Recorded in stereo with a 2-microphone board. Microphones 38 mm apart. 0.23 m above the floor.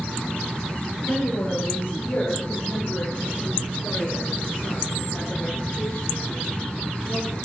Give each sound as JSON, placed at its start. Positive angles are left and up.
{"t": 1.1, "sound": "a woman speaking", "side_deg": 60, "distance_m": 4.0}